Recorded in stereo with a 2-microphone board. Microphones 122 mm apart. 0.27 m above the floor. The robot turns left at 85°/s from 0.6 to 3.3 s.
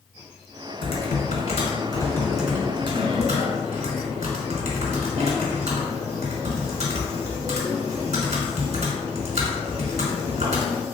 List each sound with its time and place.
0.8 s typing on a keyboard: 130° left, 1.1 m; by 10.8 s 80° right, 1.1 m